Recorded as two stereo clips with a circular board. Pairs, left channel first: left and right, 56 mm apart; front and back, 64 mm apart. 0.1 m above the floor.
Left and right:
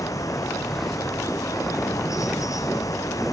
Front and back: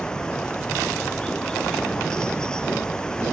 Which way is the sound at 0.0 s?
80° left.